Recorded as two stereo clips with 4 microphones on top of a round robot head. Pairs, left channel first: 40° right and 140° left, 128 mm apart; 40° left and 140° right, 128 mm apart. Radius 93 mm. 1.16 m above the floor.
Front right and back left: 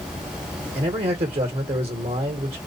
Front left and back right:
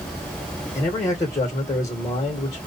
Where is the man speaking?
100° left, 1.2 m.